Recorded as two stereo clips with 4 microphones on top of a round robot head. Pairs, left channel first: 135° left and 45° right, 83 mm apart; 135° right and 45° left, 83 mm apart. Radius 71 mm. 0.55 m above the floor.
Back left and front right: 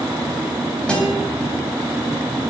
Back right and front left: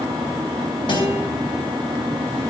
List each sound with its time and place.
0.9 s a guitar: 145° right, 3.5 m